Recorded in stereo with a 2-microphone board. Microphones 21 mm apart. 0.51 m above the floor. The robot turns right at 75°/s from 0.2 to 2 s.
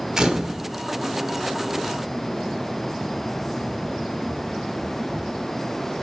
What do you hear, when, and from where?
0.2 s a camera shutter: 25° right (ahead or behind), 1.1 m; by 0.6 s centre (ahead or behind), 1.1 m